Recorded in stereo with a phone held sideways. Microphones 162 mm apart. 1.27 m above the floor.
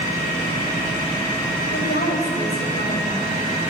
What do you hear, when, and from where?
1.7 s a woman speaking: 75° left (ahead or behind), 5 m